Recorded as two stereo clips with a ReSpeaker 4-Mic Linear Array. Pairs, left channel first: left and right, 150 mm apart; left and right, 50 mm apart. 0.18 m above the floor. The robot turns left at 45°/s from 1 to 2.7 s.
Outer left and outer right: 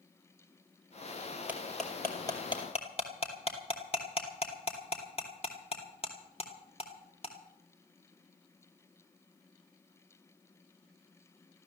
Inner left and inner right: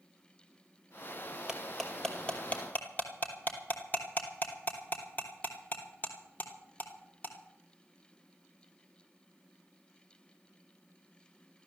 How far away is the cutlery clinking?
About 2.5 m.